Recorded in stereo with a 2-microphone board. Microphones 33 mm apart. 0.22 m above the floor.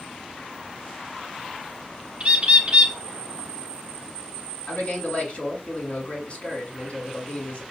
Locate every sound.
2.2 s a bird: 35° right (ahead or behind), 0.9 m
4.7 s a man speaking: 45° left (ahead or behind), 1.8 m